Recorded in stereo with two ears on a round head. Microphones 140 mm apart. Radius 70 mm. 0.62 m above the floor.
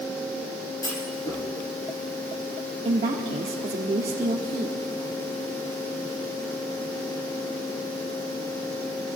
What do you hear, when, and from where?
0.8 s a clunk: 25° left (ahead or behind), 5.5 m
2.9 s a woman speaking: 40° right (ahead or behind), 1.3 m